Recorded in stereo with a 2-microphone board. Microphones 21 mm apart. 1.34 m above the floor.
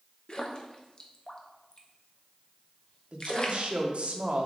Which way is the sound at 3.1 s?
55° right (ahead or behind).